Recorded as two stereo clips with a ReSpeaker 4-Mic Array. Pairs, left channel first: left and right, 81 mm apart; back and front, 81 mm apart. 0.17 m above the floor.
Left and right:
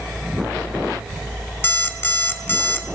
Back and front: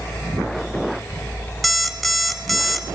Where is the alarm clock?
90° left, 0.6 m.